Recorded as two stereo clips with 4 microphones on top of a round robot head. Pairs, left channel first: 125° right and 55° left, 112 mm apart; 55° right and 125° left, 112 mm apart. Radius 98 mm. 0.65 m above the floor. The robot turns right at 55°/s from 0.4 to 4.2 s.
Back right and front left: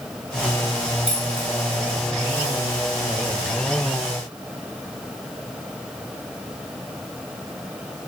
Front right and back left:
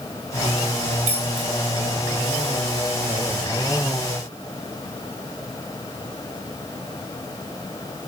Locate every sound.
1.1 s keys jangling: 135° left, 3.5 m; by 1.5 s 155° left, 3.5 m